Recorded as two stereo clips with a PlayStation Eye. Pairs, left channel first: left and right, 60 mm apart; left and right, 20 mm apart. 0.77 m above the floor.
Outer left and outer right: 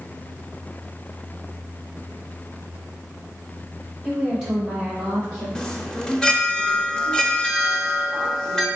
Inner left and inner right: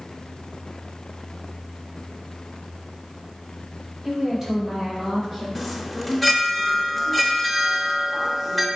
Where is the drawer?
I don't hear a drawer.